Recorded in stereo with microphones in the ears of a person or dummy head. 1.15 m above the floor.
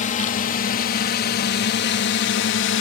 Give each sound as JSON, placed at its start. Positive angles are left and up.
{"t": 0.0, "sound": "a drone", "side_deg": 35}